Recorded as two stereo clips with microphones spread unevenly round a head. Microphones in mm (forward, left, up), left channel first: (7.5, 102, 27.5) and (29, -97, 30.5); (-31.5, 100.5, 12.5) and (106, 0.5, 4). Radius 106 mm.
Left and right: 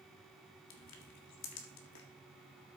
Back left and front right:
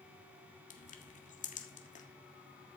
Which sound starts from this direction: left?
Crushing, at 0.7 s.